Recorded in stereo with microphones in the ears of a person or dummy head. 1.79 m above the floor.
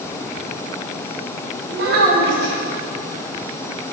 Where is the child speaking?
60° right (ahead or behind), 2 m.